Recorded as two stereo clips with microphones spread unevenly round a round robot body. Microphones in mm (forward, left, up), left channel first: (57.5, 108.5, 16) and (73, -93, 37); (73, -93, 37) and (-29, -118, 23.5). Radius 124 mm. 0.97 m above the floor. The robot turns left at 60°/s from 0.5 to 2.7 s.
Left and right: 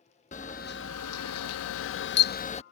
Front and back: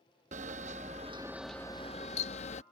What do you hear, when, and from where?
0.3 s a camera shutter: 160° left; by 2.6 s 30° left